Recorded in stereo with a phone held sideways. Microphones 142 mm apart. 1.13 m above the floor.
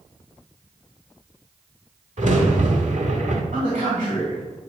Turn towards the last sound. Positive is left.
turn(degrees=-65)  # may be behind; listen again after turning